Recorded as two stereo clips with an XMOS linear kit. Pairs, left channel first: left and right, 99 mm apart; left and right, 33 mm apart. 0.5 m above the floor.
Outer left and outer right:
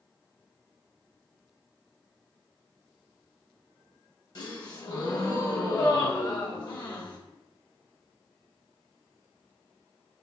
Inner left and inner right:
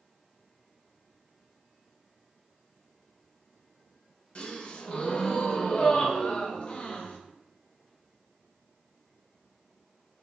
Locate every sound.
4.3 s a gasp: 45° left (ahead or behind), 0.6 m